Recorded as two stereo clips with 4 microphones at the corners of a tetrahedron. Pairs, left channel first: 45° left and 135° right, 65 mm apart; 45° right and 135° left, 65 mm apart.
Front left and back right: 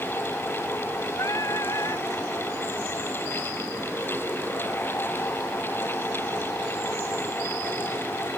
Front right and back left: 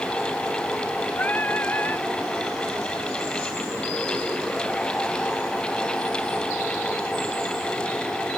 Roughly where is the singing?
Ahead.